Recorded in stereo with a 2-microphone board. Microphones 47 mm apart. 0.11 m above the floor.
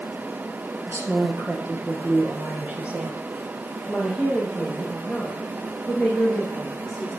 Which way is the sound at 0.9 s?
55° right (ahead or behind).